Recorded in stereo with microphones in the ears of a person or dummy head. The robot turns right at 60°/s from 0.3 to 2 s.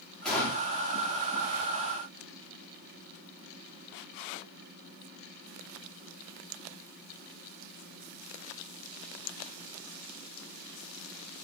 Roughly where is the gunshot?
Centre.